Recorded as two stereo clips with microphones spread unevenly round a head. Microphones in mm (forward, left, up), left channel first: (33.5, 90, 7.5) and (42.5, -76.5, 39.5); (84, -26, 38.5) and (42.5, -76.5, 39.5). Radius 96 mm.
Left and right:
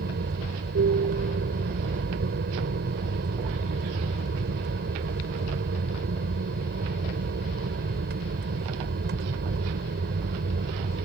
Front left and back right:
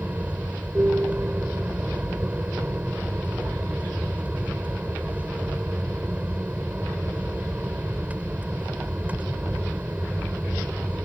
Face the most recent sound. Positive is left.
turn(degrees=-60)